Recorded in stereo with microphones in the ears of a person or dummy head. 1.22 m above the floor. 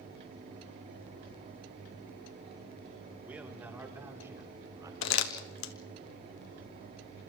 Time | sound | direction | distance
3.2 | a man speaking | 10° right (ahead or behind) | 4 m
5.0 | crumpling | 70° left (ahead or behind) | 1.6 m